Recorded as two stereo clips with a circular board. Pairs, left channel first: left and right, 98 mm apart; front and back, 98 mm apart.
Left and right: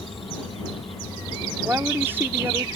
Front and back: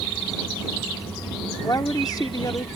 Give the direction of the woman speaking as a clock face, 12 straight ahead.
1 o'clock.